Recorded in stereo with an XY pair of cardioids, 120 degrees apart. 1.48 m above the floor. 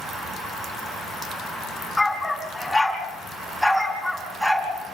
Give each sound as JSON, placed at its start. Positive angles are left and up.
{"t": 2.0, "sound": "a dog barking", "azimuth_deg": 10, "distance_m": 5.5}